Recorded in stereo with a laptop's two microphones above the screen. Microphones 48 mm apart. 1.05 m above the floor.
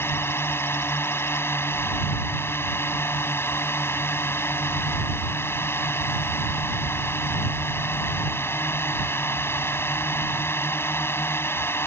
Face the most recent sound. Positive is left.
turn(degrees=55)  # may be behind; listen again after turning